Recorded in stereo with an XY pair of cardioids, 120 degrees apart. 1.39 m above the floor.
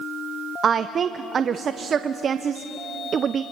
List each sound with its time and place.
0.6 s a woman speaking: 45° right, 0.7 m